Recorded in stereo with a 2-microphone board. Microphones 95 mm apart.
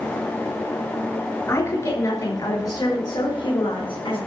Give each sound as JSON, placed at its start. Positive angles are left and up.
{"t": 1.5, "sound": "a woman speaking", "side_deg": 30, "distance_m": 4.5}